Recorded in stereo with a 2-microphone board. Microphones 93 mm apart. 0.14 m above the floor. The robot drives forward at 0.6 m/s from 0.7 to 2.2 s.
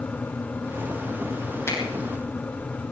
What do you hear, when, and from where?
1.7 s a finger snap: 30° left (ahead or behind), 5.5 m